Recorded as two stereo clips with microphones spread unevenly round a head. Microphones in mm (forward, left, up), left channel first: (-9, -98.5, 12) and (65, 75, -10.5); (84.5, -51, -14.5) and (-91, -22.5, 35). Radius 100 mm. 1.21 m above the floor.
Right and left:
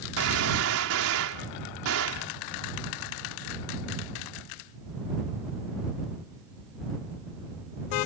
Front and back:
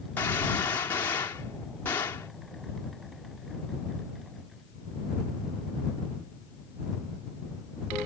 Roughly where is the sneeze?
No sneeze in this recording.